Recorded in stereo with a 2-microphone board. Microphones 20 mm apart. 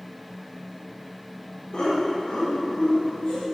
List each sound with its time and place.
1.7 s laughter: 40° left (ahead or behind), 2 m; by 3.4 s 50° left (ahead or behind), 3 m